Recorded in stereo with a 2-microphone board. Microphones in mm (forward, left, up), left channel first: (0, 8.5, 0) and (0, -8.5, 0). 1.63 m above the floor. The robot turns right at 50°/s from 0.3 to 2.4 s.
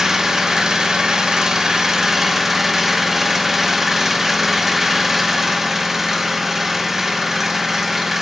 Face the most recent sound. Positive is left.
turn(degrees=-25)